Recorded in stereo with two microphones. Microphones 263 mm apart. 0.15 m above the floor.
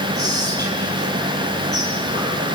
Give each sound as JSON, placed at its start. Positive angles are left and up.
{"t": 0.1, "sound": "whispering", "side_deg": -35, "distance_m": 3.5}